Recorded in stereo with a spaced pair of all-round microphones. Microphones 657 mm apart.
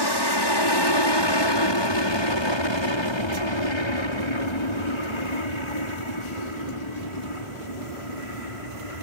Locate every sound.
0.0 s an aircraft: 35° left (ahead or behind); by 9.0 s 55° left (ahead or behind)